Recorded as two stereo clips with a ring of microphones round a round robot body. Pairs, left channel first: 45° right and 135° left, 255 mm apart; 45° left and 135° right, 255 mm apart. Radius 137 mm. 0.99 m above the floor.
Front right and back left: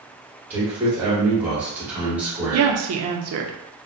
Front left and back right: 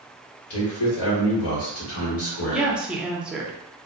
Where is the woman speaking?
140° left, 0.6 m.